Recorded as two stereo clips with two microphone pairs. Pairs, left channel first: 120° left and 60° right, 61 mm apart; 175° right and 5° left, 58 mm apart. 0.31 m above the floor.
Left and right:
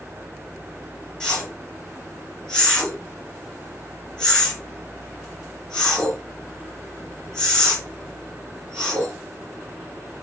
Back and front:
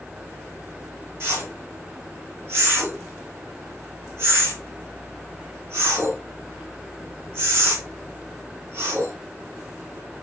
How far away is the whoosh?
About 3 m.